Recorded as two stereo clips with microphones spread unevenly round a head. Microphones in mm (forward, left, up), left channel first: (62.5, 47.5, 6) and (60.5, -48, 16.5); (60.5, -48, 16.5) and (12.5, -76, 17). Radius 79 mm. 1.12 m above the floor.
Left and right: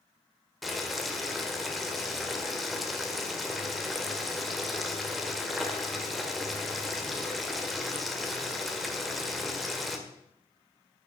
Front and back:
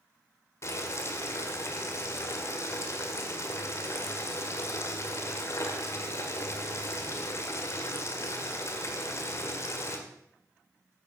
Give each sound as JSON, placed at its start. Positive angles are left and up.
{"t": 0.6, "sound": "boiling", "azimuth_deg": -5, "distance_m": 1.9}